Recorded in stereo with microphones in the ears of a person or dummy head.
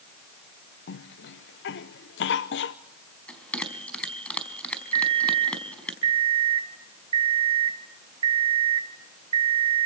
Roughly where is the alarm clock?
Right.